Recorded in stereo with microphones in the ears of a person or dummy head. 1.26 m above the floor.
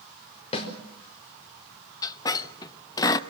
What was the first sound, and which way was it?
A snare drum, 35° left (ahead or behind).